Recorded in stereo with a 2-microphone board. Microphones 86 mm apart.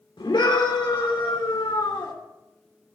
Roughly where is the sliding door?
I don't hear a sliding door.